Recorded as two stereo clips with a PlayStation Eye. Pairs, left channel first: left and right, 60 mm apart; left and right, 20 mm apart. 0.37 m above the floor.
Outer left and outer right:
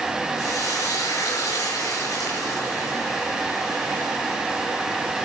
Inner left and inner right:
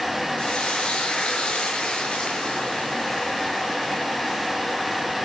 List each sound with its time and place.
0.4 s frying: 70° left (ahead or behind), 6 m